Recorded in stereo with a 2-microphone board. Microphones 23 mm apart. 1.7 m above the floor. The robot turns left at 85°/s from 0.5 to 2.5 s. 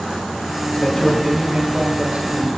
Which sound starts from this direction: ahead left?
A man speaking, at 0.7 s.